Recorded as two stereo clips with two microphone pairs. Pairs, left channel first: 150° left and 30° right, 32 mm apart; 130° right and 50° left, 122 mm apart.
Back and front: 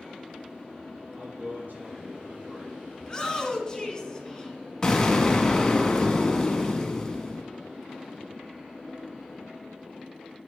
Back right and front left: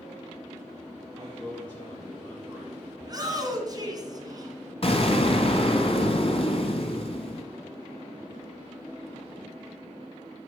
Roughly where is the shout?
Left.